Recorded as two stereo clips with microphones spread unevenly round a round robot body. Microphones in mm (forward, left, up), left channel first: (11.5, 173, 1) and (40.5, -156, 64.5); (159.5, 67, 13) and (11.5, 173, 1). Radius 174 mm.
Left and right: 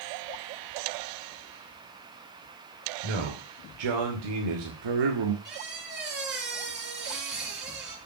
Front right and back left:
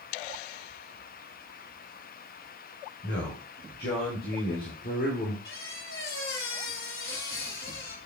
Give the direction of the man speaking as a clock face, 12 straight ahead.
3 o'clock.